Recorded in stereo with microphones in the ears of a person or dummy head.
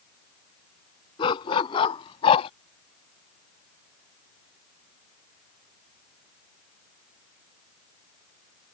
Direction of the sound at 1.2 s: 30° left (ahead or behind).